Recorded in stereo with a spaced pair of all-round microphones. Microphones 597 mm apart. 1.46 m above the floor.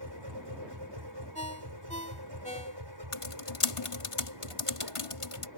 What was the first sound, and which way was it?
A machine running, 45° right (ahead or behind).